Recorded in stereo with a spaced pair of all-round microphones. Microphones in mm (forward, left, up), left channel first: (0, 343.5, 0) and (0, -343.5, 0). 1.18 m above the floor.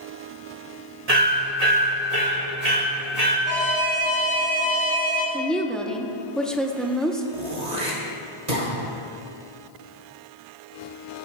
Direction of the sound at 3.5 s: 55° left (ahead or behind).